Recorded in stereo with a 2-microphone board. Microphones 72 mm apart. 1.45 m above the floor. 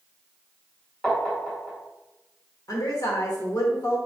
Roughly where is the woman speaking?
Left.